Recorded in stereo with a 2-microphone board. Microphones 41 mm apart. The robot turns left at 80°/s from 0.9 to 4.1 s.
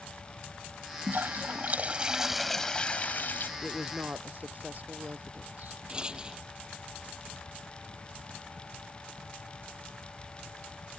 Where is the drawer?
I don't hear a drawer.